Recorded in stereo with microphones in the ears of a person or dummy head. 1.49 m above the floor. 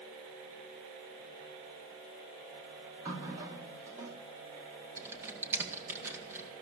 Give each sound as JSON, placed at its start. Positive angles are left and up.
{"t": 3.0, "sound": "a running tap", "side_deg": -20, "distance_m": 1.9}
{"t": 5.0, "sound": "typing on a keyboard", "side_deg": -15, "distance_m": 2.0}